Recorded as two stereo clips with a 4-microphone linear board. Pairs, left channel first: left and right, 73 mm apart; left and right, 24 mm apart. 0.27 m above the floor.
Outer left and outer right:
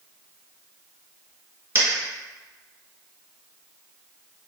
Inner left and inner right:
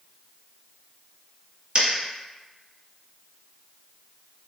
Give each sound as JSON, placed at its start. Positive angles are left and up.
{"t": 1.8, "sound": "a dropped coin", "side_deg": -35, "distance_m": 1.0}